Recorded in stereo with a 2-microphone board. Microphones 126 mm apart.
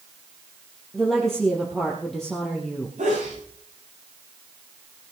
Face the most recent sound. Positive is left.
turn(degrees=-80)